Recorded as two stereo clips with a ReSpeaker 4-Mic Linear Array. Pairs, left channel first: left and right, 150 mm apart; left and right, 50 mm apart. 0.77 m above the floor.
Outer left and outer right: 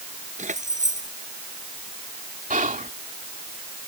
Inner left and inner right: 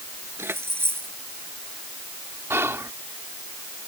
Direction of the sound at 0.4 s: 55° right (ahead or behind).